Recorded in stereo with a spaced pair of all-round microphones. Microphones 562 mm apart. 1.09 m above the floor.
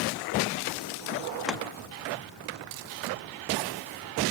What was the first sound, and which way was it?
Chopping, centre (ahead or behind).